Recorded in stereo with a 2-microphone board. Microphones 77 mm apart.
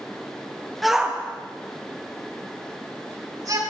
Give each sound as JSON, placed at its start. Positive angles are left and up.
{"t": 0.8, "sound": "a shout", "side_deg": 0, "distance_m": 1.1}